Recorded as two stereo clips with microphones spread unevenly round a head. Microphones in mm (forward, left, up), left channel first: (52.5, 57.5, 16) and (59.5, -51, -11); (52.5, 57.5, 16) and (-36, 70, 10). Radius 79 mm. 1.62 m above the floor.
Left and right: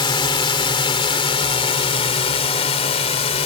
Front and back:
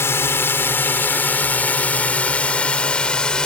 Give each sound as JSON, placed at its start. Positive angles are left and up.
{"t": 0.0, "sound": "a drone", "azimuth_deg": 55}